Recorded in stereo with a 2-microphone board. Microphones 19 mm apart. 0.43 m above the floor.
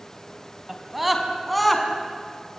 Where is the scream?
15° right (ahead or behind), 4 m; by 1.9 s centre (ahead or behind), 5 m.